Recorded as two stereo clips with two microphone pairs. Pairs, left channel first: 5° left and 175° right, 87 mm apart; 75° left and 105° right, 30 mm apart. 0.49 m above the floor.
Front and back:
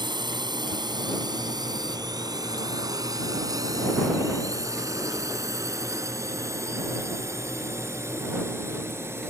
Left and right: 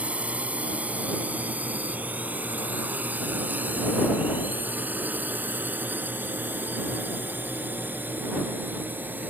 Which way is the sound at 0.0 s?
150° right.